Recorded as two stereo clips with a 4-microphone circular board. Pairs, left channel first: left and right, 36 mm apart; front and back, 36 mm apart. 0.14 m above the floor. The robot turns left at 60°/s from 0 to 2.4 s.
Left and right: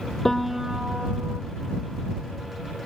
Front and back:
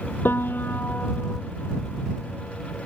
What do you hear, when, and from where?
0.2 s a piano: 10° left; by 1.4 s 60° right